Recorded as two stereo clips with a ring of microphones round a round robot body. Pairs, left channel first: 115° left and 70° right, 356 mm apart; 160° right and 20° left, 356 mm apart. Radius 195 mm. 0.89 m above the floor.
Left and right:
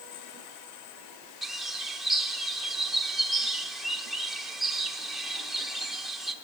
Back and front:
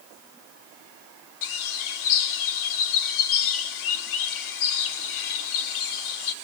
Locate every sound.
1.4 s a bird: 155° right, 0.9 m